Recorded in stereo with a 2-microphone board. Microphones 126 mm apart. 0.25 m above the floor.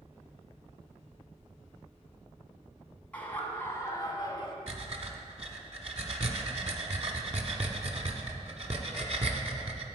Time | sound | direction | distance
3.1 | laughter | 10° left (ahead or behind) | 1.8 m
4.7 | breathing | 60° right (ahead or behind) | 1.0 m